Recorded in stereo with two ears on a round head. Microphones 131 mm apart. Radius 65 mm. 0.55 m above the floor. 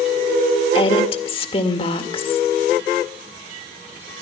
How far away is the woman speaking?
About 1.9 m.